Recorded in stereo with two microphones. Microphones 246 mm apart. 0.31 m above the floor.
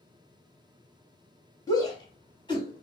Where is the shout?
15° left (ahead or behind), 2 m; by 2.8 s 20° left (ahead or behind), 2.5 m.